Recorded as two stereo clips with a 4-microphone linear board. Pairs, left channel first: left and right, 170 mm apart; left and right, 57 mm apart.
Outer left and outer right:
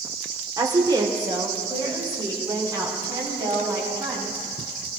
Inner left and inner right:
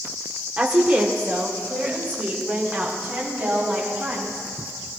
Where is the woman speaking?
25° right (ahead or behind), 1.4 m.